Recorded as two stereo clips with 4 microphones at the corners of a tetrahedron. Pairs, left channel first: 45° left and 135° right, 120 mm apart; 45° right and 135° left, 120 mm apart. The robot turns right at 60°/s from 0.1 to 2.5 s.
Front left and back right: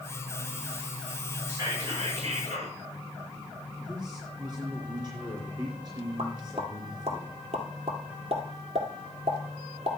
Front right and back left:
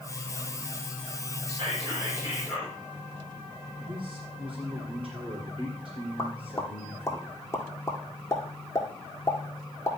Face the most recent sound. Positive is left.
turn(degrees=-110)